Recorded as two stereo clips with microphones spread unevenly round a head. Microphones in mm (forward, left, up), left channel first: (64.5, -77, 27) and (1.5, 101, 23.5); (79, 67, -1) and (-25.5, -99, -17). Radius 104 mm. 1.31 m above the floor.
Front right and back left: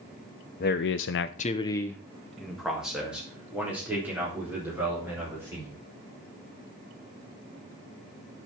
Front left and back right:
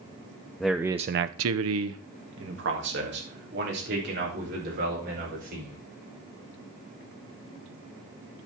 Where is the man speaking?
30° right, 0.8 m; by 5.8 s 170° right, 6 m.